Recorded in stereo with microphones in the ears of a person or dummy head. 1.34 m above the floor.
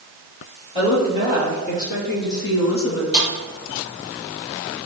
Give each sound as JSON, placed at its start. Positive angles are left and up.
{"t": 0.8, "sound": "a woman speaking", "side_deg": 25, "distance_m": 3.5}
{"t": 3.1, "sound": "a snare drum", "side_deg": 50, "distance_m": 3.0}